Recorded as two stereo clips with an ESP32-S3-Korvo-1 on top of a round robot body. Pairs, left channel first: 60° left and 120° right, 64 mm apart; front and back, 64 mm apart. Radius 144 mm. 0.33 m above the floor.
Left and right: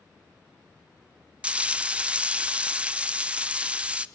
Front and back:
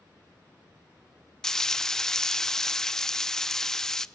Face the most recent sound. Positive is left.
turn(degrees=-75)